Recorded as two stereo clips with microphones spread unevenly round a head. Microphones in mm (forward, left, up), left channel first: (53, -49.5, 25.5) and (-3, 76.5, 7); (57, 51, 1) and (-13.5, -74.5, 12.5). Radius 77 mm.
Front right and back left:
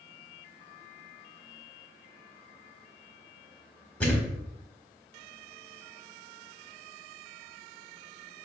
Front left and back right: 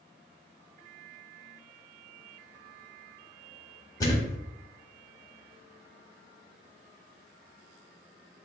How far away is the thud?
About 1.0 m.